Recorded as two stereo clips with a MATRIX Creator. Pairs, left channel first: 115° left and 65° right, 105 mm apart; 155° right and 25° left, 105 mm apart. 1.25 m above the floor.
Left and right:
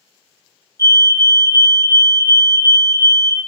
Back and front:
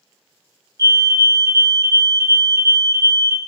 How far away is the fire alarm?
About 1.3 m.